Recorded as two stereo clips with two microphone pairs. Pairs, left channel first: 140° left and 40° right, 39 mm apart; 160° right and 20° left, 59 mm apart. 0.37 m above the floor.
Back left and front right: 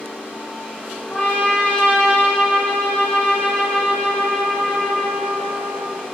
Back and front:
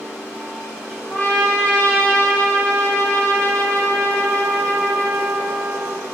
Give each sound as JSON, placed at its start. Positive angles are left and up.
{"t": 1.1, "sound": "a trumpet", "azimuth_deg": 160, "distance_m": 1.2}